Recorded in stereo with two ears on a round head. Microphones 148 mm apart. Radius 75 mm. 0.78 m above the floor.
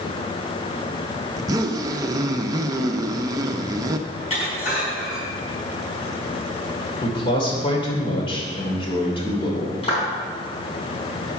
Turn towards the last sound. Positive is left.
turn(degrees=35)  # may be behind; listen again after turning